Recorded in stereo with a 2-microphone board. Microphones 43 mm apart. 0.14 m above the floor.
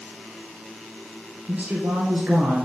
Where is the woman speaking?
55° right (ahead or behind), 2 m.